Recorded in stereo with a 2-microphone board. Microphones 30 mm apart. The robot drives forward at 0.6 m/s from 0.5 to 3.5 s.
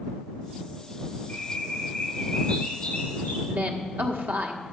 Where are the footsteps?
I don't hear footsteps.